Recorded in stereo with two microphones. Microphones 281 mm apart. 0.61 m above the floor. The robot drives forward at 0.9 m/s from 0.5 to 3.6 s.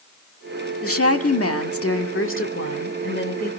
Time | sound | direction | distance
0.8 | a woman speaking | 50° left (ahead or behind) | 1.7 m